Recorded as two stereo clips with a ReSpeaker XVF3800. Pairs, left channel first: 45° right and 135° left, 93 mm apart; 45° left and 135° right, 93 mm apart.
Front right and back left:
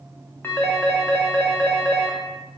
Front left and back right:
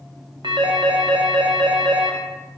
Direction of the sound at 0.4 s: 110° right.